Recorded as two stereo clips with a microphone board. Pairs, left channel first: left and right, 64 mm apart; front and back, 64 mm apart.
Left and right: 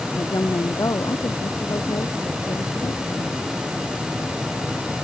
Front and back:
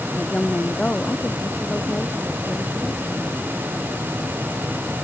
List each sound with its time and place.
0.1 s a woman speaking: 70° left; by 3.4 s 80° left